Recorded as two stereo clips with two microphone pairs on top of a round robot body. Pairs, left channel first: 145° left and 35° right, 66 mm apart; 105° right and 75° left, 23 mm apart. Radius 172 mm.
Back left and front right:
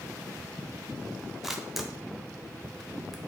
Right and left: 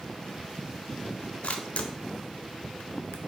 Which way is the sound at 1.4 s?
125° right.